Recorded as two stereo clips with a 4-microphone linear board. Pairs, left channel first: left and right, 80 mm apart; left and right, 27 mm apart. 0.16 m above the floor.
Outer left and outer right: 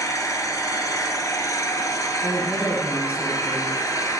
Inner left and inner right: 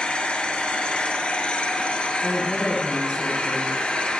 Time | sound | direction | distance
0.0 | an engine running | 45° left (ahead or behind) | 1.3 m
2.2 | a woman speaking | 20° right (ahead or behind) | 2.0 m